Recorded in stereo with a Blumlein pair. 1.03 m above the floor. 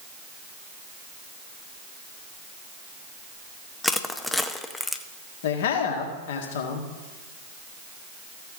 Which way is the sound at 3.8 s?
5° left.